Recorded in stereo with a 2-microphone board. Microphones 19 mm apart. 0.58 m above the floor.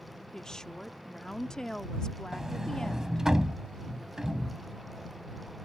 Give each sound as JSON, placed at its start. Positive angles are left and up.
{"t": 0.3, "sound": "a woman speaking", "side_deg": 35}
{"t": 2.3, "sound": "a sliding door", "side_deg": -30}